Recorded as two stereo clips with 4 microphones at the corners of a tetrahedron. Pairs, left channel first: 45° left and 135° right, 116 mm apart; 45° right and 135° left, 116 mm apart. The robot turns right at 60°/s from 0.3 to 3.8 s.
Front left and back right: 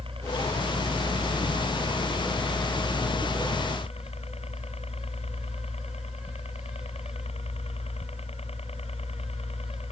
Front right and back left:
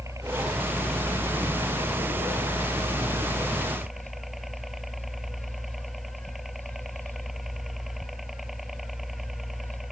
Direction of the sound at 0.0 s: 165° right.